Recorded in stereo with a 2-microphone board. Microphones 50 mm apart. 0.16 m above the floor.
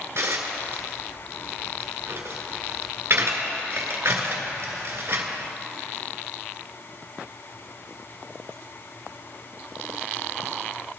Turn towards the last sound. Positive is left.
turn(degrees=-55)  # may be behind; listen again after turning